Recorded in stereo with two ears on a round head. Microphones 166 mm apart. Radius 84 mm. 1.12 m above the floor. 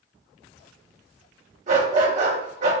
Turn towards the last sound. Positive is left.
turn(degrees=-40)  # may be behind; listen again after turning